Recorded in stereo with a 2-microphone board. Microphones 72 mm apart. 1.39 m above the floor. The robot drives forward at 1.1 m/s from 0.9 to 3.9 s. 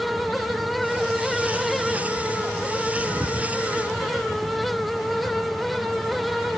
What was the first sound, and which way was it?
Only background noise.